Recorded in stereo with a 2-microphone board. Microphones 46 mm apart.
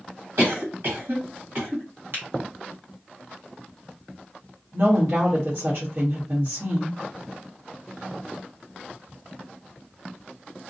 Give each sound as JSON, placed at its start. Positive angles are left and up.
{"t": 0.4, "sound": "a cough", "side_deg": -60, "distance_m": 1.6}
{"t": 2.1, "sound": "a finger snap", "side_deg": -55, "distance_m": 1.4}
{"t": 4.7, "sound": "a woman speaking", "side_deg": -50, "distance_m": 1.1}